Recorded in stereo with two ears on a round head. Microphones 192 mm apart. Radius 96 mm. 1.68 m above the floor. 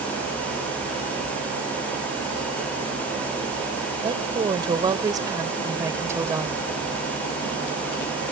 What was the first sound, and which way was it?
A woman speaking, 25° right (ahead or behind).